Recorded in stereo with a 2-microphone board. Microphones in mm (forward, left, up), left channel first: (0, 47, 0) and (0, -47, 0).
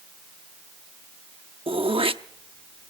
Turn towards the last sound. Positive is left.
turn(degrees=-75)  # may be behind; listen again after turning